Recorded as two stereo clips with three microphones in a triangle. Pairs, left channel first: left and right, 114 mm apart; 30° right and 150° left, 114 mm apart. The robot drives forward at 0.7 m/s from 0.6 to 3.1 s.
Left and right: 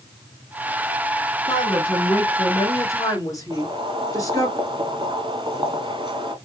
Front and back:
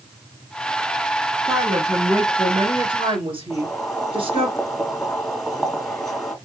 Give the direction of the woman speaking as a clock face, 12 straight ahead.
9 o'clock.